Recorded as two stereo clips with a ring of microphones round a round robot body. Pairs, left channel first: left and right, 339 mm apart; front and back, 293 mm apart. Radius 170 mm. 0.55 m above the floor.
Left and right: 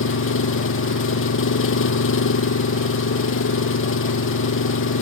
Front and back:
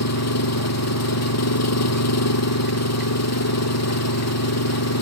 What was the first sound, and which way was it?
An engine running, 35° left.